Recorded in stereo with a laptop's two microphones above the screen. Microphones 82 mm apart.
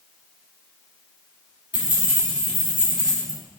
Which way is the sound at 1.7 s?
20° right (ahead or behind).